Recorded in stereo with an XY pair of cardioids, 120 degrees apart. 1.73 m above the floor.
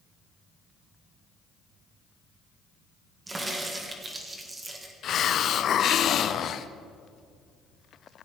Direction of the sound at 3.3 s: 25° right.